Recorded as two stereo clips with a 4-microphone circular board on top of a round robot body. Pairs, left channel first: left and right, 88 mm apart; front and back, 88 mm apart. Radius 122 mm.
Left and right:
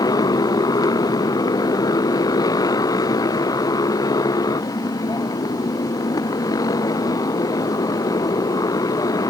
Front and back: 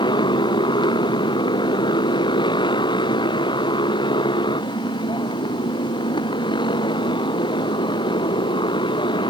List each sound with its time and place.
0.0 s a motorcycle: 40° left